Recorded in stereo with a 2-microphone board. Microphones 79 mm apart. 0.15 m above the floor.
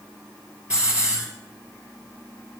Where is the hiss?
15° right (ahead or behind), 2.5 m.